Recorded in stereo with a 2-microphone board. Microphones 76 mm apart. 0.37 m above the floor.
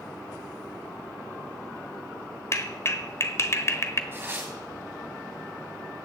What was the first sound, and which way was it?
A clap, 35° left (ahead or behind).